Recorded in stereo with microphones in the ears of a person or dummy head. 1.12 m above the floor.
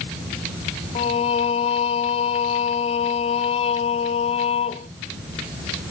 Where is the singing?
35° left (ahead or behind), 0.6 m.